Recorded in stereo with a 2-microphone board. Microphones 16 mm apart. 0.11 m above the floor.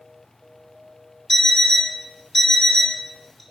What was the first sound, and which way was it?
An alarm clock, 25° left (ahead or behind).